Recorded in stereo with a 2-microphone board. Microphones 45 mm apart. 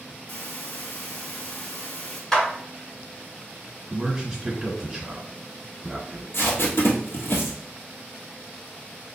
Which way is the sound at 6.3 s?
55° left (ahead or behind).